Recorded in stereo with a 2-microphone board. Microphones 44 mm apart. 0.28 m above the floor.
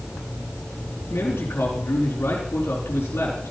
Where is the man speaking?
65° left (ahead or behind), 4 m.